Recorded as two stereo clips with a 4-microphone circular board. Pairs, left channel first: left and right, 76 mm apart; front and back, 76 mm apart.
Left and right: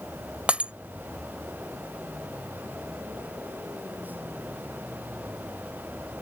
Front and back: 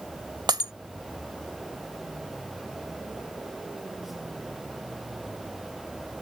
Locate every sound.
0.5 s breaking glass: 165° right